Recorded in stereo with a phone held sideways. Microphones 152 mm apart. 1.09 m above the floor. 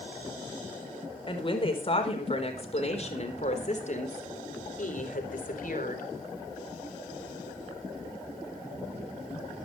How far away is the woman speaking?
About 4.5 m.